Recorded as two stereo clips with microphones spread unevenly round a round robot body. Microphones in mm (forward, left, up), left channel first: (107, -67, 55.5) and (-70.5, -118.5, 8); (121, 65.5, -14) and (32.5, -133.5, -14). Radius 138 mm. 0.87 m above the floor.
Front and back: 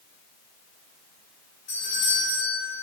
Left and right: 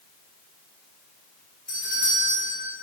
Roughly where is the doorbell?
Ahead.